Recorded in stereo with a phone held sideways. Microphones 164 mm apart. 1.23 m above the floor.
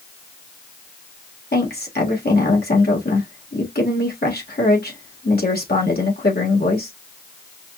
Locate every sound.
1.5 s a woman speaking: 80° left, 1.5 m